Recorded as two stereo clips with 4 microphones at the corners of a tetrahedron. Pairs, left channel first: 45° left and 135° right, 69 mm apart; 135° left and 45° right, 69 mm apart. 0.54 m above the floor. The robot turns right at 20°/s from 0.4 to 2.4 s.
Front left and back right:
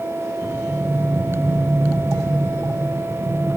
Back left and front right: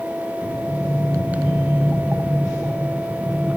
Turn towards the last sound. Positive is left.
turn(degrees=-145)